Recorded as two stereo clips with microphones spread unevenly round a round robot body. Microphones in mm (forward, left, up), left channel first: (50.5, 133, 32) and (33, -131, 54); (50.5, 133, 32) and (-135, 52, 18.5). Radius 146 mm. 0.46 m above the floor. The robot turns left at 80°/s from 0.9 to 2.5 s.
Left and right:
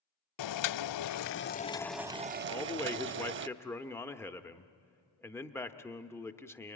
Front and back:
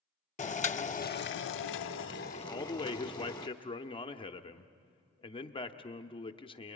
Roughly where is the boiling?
Left.